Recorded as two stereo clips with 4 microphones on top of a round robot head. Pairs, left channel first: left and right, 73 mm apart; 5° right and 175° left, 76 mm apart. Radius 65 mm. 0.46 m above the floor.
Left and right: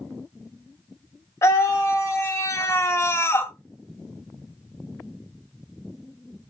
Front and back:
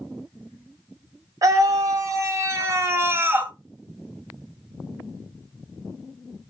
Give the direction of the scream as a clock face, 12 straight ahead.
7 o'clock.